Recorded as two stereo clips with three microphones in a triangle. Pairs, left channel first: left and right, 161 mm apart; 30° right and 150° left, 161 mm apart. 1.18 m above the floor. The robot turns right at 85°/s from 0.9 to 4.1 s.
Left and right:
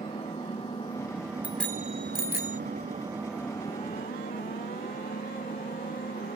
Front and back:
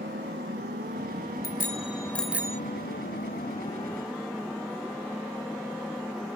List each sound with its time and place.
0.0 s an engine running: 150° left; by 6.4 s 65° left
1.4 s a bicycle bell: 10° right; by 2.6 s 90° left